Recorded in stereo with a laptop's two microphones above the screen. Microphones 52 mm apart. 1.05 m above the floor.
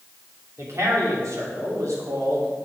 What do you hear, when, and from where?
0.6 s a man speaking: 65° right (ahead or behind), 2.5 m; by 2.5 s 75° right (ahead or behind), 3 m